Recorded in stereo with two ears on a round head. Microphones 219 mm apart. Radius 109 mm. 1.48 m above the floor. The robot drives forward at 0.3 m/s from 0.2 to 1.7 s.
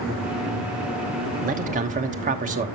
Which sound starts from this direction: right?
A man speaking, at 1.4 s.